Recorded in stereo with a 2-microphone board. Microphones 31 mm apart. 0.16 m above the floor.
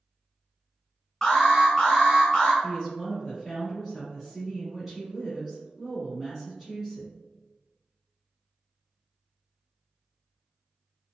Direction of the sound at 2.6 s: 5° right (ahead or behind).